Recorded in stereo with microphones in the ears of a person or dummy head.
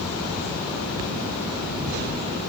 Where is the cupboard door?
No cupboard door in this recording.